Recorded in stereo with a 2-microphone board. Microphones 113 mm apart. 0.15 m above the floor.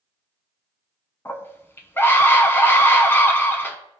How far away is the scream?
About 1.0 m.